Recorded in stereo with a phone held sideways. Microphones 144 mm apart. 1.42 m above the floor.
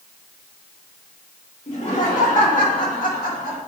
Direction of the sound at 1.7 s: 55° left (ahead or behind).